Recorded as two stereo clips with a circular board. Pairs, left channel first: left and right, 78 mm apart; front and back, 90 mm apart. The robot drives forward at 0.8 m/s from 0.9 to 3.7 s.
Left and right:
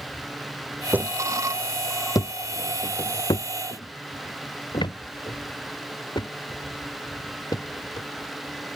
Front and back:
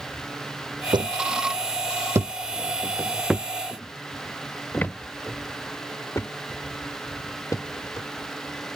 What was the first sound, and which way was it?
Footsteps, 155° right.